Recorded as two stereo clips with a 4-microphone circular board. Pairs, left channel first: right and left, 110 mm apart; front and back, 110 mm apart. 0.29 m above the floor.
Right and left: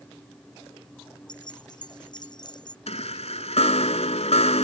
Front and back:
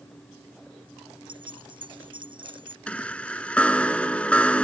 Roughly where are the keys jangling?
Behind right.